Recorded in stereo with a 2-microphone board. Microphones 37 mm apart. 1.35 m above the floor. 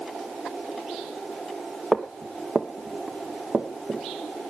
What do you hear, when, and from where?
1.9 s footsteps: 15° right (ahead or behind), 1.5 m; by 4.0 s 65° right (ahead or behind), 3.5 m